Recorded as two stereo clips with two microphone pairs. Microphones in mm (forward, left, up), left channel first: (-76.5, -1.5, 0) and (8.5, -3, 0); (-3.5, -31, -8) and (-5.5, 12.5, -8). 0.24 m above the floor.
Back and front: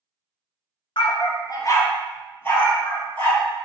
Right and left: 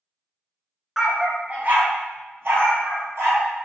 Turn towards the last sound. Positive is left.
turn(degrees=110)